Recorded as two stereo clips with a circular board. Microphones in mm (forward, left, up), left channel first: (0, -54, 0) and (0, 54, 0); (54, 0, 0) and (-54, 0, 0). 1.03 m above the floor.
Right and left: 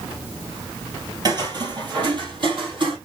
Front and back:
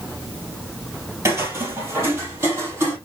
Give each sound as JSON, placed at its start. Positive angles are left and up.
{"t": 1.2, "sound": "footsteps", "azimuth_deg": 125, "distance_m": 1.6}